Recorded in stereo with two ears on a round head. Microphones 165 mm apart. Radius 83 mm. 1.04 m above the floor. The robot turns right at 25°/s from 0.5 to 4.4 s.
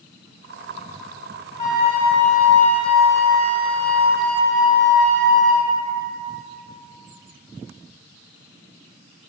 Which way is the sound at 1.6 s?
140° left.